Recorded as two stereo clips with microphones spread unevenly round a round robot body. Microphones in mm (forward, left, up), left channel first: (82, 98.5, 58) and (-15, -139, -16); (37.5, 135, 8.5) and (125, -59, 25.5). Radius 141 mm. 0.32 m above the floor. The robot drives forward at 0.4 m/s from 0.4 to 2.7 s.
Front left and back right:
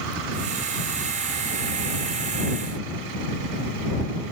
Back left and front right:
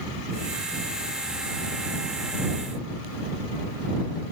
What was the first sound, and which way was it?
Only background noise.